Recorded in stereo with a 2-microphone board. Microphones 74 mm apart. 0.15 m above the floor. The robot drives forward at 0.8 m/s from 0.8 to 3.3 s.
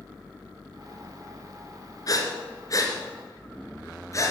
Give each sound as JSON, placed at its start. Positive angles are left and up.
{"t": 2.1, "sound": "breathing", "side_deg": 50, "distance_m": 2.5}